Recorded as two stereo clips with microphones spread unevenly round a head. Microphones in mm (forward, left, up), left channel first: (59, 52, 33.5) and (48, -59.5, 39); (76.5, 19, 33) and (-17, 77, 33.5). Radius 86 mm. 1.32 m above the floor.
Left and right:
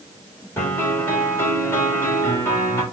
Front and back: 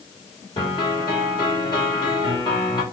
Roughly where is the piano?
Ahead.